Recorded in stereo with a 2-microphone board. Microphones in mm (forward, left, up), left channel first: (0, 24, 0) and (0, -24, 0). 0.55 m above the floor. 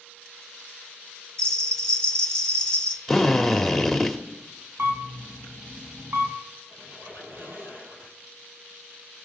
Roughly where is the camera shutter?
Right.